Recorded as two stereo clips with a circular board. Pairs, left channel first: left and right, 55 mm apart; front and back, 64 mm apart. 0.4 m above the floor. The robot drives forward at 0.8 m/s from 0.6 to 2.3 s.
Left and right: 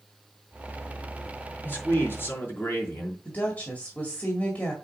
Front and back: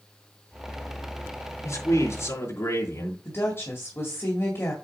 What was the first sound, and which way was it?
A man speaking, 35° left.